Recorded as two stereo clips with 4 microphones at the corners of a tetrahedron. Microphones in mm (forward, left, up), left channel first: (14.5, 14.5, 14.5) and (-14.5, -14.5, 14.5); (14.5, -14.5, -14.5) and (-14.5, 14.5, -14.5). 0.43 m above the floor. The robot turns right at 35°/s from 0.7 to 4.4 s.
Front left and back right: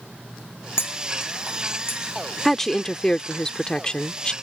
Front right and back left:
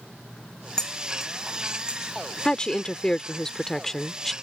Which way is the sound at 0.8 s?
30° left.